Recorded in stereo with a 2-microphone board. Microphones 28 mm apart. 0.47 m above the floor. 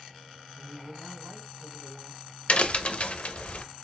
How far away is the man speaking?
About 2.5 m.